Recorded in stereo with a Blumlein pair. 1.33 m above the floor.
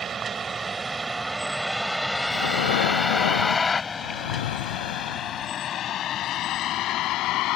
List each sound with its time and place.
0.0 s a vehicle: 20° right; by 7.6 s 40° left
2.3 s breathing: 60° left